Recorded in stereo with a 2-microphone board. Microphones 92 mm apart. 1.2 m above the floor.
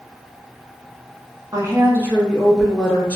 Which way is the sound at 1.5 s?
40° right (ahead or behind).